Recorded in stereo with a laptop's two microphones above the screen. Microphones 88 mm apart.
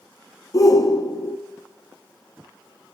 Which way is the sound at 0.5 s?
40° left (ahead or behind).